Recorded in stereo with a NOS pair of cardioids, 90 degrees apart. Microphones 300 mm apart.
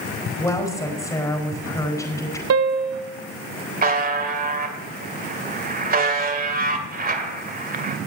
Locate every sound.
0.4 s a woman speaking: 10° left, 4.5 m
2.5 s a piano: 55° right, 1.0 m
3.8 s a buzzer: 30° right, 2 m